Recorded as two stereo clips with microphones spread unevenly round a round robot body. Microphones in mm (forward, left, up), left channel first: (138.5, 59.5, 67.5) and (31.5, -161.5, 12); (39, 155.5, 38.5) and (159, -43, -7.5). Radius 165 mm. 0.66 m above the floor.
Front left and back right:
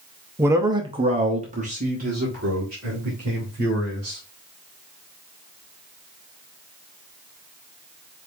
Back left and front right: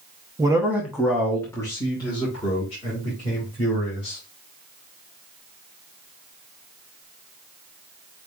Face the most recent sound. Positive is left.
turn(degrees=-170)